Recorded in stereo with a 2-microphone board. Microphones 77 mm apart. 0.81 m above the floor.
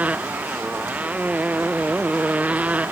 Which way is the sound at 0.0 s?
20° right (ahead or behind).